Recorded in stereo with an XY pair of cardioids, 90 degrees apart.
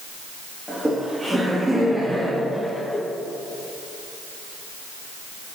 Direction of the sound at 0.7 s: 20° right.